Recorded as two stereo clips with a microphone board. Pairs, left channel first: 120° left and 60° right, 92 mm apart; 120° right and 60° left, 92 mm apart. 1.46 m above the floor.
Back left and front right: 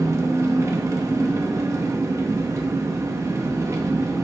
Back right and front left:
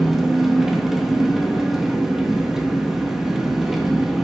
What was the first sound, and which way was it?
An engine running, 25° right.